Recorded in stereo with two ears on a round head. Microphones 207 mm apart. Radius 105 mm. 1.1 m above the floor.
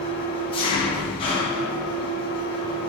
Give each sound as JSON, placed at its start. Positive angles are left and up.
{"t": 0.0, "sound": "an engine running", "side_deg": 25, "distance_m": 0.8}